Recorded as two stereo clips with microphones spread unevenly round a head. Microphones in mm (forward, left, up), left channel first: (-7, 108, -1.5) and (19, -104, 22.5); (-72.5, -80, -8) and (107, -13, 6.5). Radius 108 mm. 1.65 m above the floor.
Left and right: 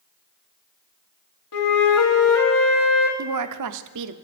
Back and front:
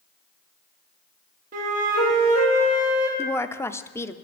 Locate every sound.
1.5 s a flute: 75° left, 2 m
3.2 s a woman speaking: 80° right, 0.7 m